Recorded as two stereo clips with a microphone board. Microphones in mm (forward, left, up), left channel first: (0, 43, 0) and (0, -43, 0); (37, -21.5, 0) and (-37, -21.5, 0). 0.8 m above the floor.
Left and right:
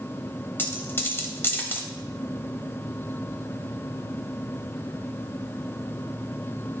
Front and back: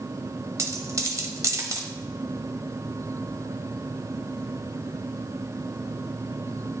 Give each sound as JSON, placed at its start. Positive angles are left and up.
{"t": 0.6, "sound": "a dropped coin", "azimuth_deg": 145, "distance_m": 0.8}